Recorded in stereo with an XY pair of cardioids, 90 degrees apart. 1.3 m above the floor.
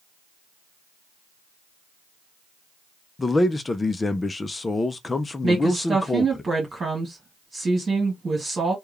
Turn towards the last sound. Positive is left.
turn(degrees=-35)